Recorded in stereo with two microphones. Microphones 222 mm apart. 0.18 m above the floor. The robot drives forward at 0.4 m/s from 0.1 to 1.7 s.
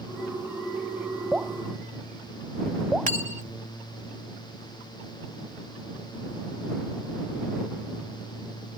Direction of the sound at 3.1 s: 35° right (ahead or behind).